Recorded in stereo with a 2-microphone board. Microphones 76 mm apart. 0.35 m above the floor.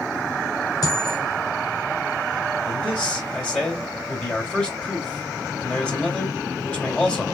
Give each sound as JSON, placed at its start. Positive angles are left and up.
{"t": 0.8, "sound": "a dropped coin", "side_deg": 55, "distance_m": 2.0}
{"t": 2.7, "sound": "a man speaking", "side_deg": 15, "distance_m": 3.5}